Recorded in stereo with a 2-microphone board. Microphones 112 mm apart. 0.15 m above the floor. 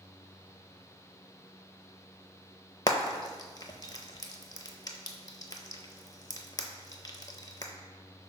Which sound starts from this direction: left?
Frying, at 2.9 s.